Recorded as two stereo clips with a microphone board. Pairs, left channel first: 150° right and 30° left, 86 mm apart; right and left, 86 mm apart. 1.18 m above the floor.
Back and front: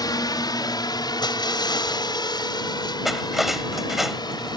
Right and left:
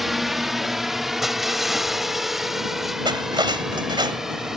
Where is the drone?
Straight behind; by 4.6 s 175° left.